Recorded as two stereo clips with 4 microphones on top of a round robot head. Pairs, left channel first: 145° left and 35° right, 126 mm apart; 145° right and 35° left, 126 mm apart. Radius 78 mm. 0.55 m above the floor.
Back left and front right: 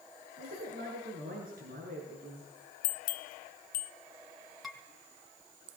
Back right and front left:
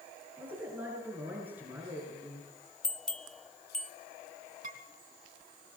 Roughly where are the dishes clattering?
Ahead left.